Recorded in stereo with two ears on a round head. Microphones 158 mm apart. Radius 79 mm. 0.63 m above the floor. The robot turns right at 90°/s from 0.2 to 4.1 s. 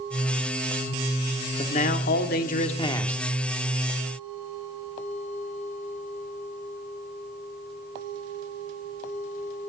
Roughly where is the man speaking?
Ahead left.